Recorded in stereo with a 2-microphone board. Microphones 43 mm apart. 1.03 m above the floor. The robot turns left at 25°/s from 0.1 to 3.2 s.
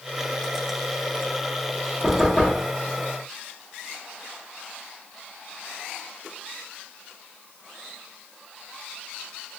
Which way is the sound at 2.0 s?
25° left (ahead or behind).